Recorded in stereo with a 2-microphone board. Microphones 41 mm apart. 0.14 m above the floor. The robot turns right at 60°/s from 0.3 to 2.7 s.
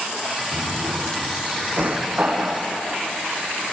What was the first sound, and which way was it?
A drawer, 50° right (ahead or behind).